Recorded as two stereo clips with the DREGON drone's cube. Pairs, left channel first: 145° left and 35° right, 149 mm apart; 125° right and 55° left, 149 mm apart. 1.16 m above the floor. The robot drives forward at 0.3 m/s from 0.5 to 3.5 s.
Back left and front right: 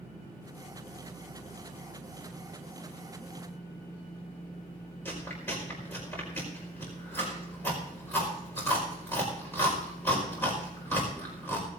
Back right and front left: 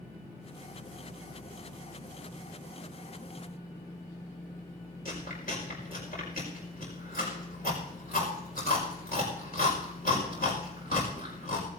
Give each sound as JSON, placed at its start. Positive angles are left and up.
{"t": 5.0, "sound": "chewing", "azimuth_deg": -140, "distance_m": 5.0}